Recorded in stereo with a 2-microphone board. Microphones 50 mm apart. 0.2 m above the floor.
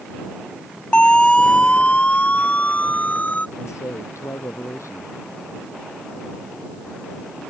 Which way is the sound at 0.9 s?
20° left (ahead or behind).